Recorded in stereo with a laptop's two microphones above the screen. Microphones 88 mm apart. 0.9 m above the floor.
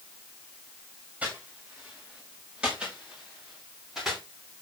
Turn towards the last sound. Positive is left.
turn(degrees=-5)  # may be behind; listen again after turning